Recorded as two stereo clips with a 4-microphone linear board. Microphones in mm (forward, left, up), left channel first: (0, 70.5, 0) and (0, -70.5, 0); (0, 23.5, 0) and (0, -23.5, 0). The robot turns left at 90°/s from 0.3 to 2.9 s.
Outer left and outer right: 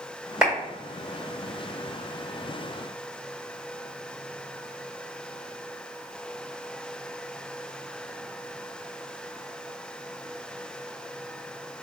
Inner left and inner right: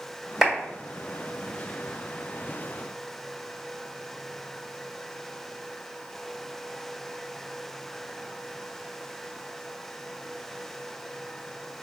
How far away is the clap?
About 1.8 m.